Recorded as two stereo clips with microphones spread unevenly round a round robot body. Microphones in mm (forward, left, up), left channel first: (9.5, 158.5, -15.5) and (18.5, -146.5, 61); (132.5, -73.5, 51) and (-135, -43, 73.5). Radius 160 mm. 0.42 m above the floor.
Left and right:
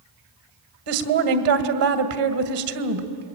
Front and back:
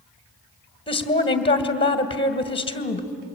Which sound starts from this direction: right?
A woman speaking, at 0.9 s.